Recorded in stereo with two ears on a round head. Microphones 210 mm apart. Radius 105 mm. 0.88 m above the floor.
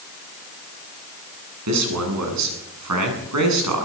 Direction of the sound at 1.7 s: 80° right.